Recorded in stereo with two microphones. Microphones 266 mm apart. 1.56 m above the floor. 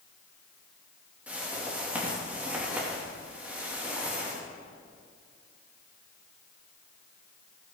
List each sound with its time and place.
1.3 s a whoosh: 5° right (ahead or behind), 3 m